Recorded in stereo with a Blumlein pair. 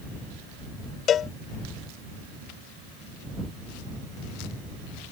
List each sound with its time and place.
1.1 s a cowbell: 25° left